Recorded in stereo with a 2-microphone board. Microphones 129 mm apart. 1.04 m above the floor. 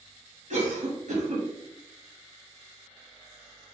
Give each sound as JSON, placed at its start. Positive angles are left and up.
{"t": 0.5, "sound": "a cough", "side_deg": -70, "distance_m": 1.5}